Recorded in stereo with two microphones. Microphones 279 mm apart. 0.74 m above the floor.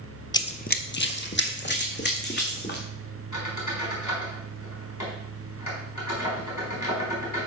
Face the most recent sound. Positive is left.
turn(degrees=80)